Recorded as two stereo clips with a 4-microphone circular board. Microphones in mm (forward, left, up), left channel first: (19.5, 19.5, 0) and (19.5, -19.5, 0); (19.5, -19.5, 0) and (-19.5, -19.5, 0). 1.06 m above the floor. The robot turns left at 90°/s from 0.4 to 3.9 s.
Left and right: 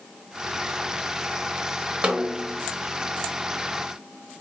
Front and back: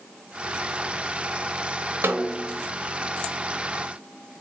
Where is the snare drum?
160° right, 0.6 m; by 2.6 s 150° left, 0.6 m.